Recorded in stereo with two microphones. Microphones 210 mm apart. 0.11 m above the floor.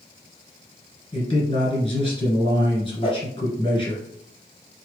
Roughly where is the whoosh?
Left.